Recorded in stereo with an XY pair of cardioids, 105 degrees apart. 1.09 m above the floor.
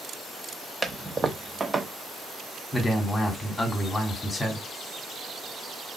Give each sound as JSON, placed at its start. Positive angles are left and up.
{"t": 0.8, "sound": "a toilet flushing", "azimuth_deg": -25, "distance_m": 0.9}
{"t": 2.7, "sound": "a man speaking", "azimuth_deg": 15, "distance_m": 3.0}